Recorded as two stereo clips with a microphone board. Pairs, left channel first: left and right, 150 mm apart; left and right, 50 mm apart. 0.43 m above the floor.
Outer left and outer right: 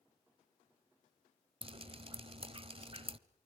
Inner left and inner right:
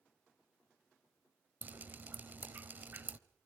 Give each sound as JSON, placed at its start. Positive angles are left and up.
{"t": 1.6, "sound": "dripping", "side_deg": -40, "distance_m": 0.9}